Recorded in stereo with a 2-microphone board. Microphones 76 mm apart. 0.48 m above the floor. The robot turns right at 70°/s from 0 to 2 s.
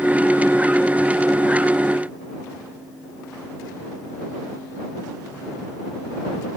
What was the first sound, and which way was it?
Only background noise.